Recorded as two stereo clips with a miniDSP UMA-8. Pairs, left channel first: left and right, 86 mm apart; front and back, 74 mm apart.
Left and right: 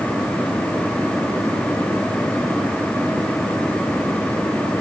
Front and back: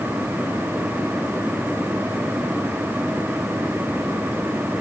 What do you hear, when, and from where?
Only background noise.